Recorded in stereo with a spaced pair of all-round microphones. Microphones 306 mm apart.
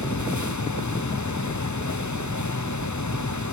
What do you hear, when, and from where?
0.0 s a fan: 70° left (ahead or behind), 0.8 m